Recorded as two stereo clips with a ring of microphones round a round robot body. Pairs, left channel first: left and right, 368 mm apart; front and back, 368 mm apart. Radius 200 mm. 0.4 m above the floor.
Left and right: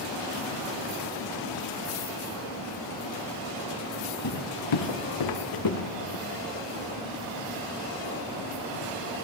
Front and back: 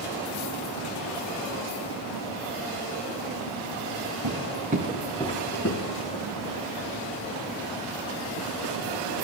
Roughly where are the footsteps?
Behind left.